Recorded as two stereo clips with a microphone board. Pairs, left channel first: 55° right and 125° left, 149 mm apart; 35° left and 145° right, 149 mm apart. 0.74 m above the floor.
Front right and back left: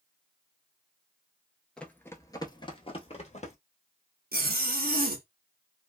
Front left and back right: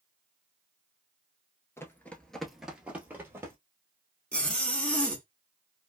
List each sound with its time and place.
1.8 s running footsteps: 15° left, 0.7 m; by 3.5 s 75° right, 1.1 m
4.3 s a zipper: 115° left, 0.8 m